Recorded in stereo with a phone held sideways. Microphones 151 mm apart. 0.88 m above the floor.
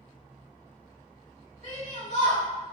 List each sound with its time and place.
1.6 s a shout: 50° left (ahead or behind), 1.4 m